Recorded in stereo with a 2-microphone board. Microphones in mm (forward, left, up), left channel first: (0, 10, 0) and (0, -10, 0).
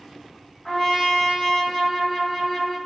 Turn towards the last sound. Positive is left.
turn(degrees=10)  # may be behind; listen again after turning